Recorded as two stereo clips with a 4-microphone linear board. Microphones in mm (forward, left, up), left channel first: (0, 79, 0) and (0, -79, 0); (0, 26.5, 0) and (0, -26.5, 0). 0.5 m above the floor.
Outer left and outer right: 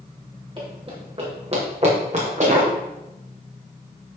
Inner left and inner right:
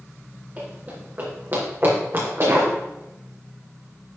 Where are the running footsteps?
30° right (ahead or behind), 5.5 m; by 2.7 s 45° right (ahead or behind), 5.5 m.